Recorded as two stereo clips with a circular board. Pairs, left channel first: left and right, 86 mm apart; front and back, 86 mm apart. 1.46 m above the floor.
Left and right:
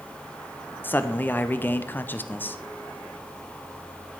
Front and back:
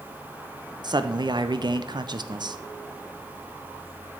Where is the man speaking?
155° left, 0.5 m.